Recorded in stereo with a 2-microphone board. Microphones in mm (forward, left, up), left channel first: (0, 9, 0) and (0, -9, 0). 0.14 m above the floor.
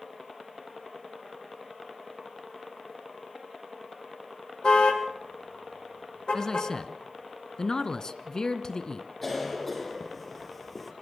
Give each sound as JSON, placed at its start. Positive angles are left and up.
{"t": 4.6, "sound": "a car horn", "side_deg": 50, "distance_m": 3.5}
{"t": 6.3, "sound": "a man speaking", "side_deg": 35, "distance_m": 1.4}
{"t": 9.2, "sound": "a cough", "side_deg": 0, "distance_m": 3.5}